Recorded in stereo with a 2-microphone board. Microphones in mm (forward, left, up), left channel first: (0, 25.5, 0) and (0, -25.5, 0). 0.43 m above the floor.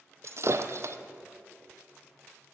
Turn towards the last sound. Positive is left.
turn(degrees=-60)  # may be behind; listen again after turning